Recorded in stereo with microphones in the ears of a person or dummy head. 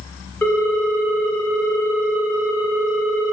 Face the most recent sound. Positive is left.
turn(degrees=10)  # may be behind; listen again after turning